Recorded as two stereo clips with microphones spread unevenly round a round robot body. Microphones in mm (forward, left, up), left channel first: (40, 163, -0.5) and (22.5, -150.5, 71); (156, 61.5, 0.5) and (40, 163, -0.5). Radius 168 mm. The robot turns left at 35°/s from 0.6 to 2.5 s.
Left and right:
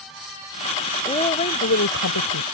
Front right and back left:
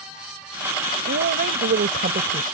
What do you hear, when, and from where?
1.1 s a woman speaking: 165° left; by 2.5 s 115° left